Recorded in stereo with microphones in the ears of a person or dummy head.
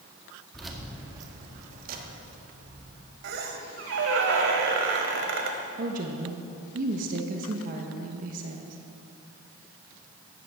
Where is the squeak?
60° right (ahead or behind), 1.5 m.